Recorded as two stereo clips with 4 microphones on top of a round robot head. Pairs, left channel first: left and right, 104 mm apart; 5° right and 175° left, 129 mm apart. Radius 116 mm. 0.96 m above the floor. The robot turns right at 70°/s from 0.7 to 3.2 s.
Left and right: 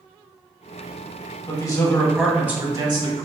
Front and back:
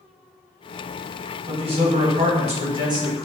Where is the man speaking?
125° left, 1.3 m; by 3.3 s 115° right, 1.3 m.